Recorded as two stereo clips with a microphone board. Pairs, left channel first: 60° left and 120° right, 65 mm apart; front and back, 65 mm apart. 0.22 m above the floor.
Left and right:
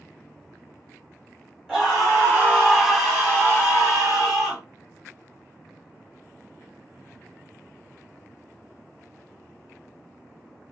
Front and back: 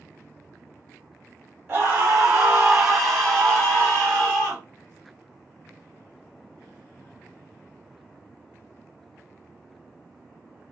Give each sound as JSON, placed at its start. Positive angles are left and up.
{"t": 1.7, "sound": "a scream", "azimuth_deg": 155, "distance_m": 1.7}